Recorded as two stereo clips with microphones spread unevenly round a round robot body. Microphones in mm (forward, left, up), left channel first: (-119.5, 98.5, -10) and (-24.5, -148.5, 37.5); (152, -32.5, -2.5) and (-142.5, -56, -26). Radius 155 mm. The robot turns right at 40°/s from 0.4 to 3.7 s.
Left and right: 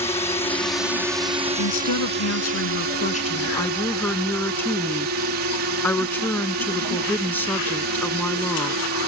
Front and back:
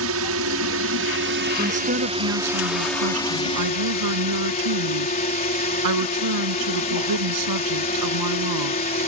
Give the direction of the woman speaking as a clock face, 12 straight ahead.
8 o'clock.